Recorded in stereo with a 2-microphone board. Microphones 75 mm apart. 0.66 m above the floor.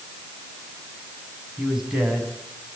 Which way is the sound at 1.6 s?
10° right (ahead or behind).